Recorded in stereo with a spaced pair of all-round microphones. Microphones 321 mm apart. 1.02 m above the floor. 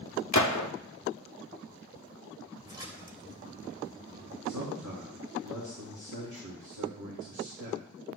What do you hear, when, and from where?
0.3 s a gunshot: 60° left (ahead or behind), 0.7 m
2.6 s a splash: 15° right (ahead or behind), 2 m
4.5 s a man speaking: 65° right (ahead or behind), 1.9 m